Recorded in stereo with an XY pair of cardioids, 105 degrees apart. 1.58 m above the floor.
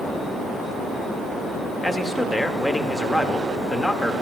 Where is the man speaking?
15° left, 0.9 m.